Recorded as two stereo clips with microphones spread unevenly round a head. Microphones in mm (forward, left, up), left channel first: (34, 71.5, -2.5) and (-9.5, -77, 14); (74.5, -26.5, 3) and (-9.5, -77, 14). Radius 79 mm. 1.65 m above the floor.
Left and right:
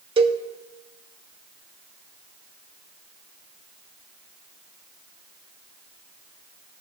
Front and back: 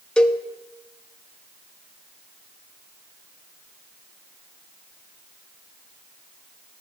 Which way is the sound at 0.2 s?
50° right.